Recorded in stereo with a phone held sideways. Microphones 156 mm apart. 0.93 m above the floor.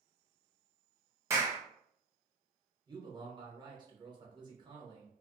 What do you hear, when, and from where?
1.3 s a clap: 20° right (ahead or behind), 0.7 m
2.9 s a man speaking: 30° right (ahead or behind), 0.9 m